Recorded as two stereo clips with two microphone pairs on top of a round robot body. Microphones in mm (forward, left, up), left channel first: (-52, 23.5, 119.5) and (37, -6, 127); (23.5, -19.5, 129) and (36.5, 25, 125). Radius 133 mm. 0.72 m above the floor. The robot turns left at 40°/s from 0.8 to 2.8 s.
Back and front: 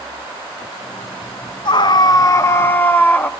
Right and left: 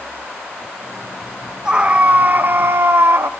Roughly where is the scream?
Behind left.